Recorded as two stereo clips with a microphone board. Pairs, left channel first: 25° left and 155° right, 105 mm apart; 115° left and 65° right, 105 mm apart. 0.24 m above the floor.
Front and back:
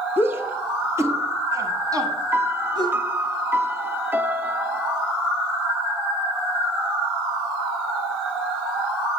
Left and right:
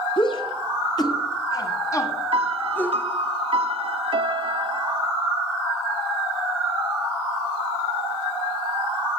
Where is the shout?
135° left, 3 m; by 3.0 s 175° right, 2 m.